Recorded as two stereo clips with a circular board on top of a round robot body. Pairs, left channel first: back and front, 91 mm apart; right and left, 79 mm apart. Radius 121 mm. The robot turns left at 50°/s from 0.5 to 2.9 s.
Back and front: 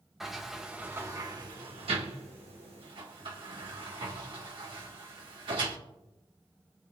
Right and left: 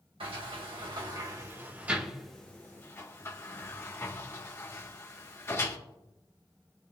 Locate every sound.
0.2 s a sliding door: 85° left, 1.8 m; by 5.8 s 35° right, 1.8 m